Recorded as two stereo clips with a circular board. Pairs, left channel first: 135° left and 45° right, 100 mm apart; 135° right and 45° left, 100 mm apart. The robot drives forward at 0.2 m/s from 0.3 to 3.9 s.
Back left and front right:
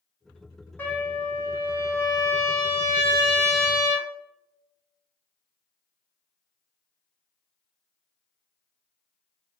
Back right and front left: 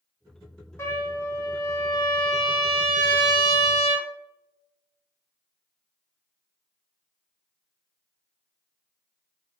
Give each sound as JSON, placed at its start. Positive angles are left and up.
{"t": 0.8, "sound": "a trumpet", "azimuth_deg": -170, "distance_m": 0.6}